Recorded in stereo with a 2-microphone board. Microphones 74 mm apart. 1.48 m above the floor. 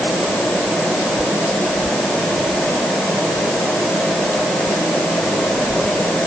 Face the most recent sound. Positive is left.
No sound to turn to.